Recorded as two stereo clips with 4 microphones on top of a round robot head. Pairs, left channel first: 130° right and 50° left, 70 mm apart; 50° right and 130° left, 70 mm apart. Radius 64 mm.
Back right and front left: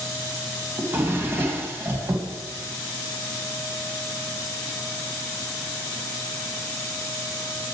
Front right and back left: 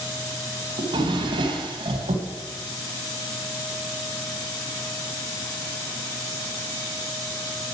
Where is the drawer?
110° left, 2 m.